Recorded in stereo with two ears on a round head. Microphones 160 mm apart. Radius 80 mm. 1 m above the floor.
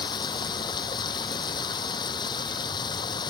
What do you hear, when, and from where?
0.0 s running water: 25° left (ahead or behind)